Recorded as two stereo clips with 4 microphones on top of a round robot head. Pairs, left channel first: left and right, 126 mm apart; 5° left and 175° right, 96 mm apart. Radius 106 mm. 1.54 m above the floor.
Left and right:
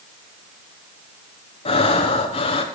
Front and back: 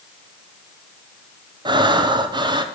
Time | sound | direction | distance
1.6 | breathing | 140° left | 1.4 m